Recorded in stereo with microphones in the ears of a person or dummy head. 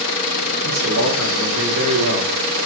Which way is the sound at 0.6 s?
75° right (ahead or behind).